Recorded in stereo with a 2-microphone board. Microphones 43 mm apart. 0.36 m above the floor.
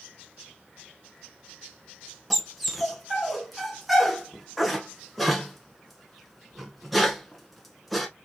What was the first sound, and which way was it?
A dog barking, centre (ahead or behind).